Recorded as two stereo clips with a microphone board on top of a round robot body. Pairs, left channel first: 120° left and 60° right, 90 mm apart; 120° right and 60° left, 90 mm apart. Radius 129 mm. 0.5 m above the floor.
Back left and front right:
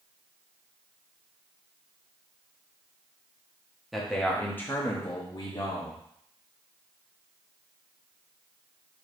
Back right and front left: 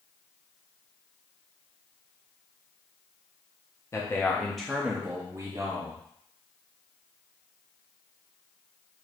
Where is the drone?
No drone in this recording.